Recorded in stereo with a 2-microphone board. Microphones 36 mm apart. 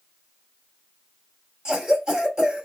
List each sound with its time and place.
1.6 s a cough: 20° right (ahead or behind), 1.0 m